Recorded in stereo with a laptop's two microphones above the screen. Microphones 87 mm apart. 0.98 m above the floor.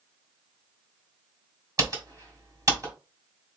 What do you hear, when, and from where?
1.8 s typing on a keyboard: 45° right (ahead or behind), 1.6 m